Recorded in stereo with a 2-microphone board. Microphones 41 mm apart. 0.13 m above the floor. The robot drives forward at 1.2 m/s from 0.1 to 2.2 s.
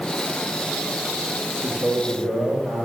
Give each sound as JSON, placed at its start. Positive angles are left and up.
{"t": 1.6, "sound": "a man speaking", "side_deg": -80, "distance_m": 7.5}